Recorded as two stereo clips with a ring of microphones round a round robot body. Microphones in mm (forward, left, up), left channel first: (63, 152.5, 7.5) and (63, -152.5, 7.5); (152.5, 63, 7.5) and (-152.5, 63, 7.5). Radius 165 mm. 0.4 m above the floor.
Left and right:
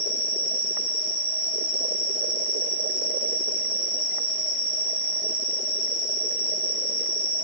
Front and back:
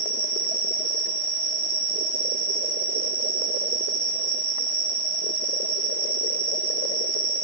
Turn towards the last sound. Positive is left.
turn(degrees=-95)